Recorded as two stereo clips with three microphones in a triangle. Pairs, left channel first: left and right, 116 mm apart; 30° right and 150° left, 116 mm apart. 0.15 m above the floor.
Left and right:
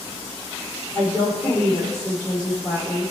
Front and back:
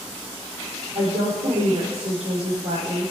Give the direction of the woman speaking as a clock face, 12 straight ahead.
7 o'clock.